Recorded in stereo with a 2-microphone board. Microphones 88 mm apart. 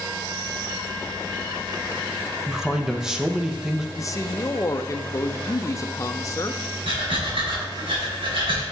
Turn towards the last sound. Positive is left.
turn(degrees=-85)